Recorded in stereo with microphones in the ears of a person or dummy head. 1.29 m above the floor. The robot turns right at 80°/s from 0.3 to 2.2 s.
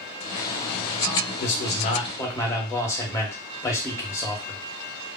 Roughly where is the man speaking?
Left.